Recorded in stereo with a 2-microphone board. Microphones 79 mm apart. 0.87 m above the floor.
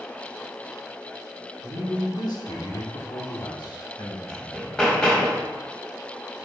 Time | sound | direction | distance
1.6 | a man speaking | 60° left (ahead or behind) | 2 m
4.3 | hammering | 10° left (ahead or behind) | 1.4 m